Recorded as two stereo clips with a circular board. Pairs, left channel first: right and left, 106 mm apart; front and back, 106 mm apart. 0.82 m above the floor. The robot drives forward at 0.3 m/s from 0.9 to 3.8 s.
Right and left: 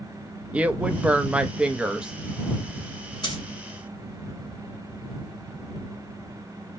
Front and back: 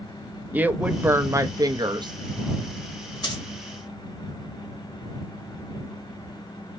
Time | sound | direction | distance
0.5 | a woman speaking | 140° left | 0.5 m
3.2 | a dropped coin | 45° right | 1.8 m